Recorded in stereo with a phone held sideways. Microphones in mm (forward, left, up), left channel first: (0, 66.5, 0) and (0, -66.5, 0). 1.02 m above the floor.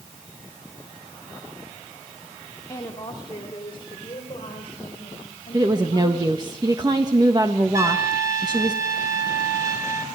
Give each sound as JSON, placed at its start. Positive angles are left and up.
{"t": 2.7, "sound": "a woman speaking", "side_deg": 30, "distance_m": 2.5}
{"t": 5.5, "sound": "a woman speaking", "side_deg": -30, "distance_m": 1.4}
{"t": 7.7, "sound": "a trumpet", "side_deg": -20, "distance_m": 3.5}